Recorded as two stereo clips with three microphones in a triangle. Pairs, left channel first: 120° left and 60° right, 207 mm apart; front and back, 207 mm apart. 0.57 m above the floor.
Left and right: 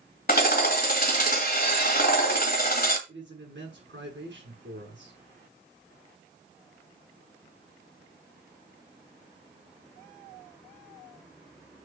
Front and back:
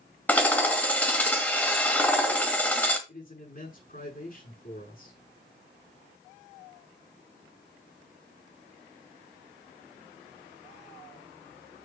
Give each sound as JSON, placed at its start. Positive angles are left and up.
{"t": 0.3, "sound": "hammering", "azimuth_deg": 80, "distance_m": 1.8}
{"t": 3.1, "sound": "a man speaking", "azimuth_deg": -40, "distance_m": 6.0}